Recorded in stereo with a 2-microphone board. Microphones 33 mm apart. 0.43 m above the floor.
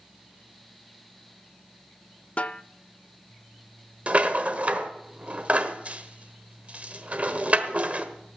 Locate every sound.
2.4 s a snare drum: 40° left (ahead or behind), 0.5 m
4.1 s a rattle: 40° right (ahead or behind), 1.2 m